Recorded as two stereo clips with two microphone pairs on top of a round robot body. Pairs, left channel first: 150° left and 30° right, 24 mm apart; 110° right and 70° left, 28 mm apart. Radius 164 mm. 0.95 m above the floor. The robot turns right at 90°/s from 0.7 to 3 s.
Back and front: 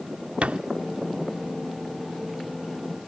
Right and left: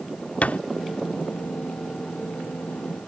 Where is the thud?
70° right.